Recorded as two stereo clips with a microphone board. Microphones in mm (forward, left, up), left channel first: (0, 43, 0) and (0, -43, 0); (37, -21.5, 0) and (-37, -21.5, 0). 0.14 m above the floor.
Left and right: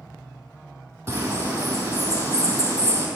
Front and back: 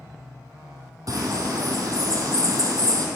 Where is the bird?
135° right, 2.5 m.